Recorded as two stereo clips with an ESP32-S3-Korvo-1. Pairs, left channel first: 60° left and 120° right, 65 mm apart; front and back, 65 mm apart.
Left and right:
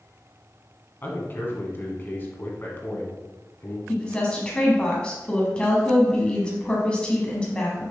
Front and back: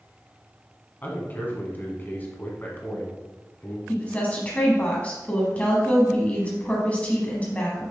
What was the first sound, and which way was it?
A man speaking, 35° left.